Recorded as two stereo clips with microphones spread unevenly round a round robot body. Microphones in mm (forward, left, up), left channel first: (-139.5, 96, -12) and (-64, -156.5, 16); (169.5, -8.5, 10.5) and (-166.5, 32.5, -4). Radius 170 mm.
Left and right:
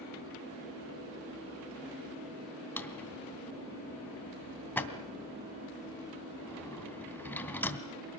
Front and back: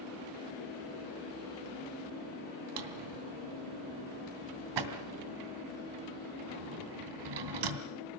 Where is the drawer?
170° right, 2.5 m.